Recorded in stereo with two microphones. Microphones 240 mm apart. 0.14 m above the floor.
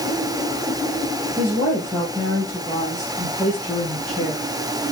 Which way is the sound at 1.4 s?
5° left (ahead or behind).